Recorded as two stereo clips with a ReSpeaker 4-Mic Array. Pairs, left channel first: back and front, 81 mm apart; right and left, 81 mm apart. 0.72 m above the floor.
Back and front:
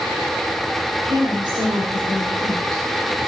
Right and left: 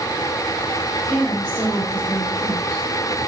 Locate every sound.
1.1 s a woman speaking: 40° left, 3 m; by 2.8 s 10° left, 2.5 m